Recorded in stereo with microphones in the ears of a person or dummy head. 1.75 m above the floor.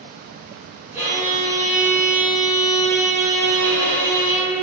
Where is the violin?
10° right (ahead or behind), 0.9 m.